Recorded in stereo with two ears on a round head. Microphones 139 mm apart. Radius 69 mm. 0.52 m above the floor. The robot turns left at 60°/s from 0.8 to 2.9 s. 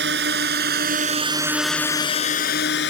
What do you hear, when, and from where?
0.0 s a drone: 80° right; by 2.9 s 80° left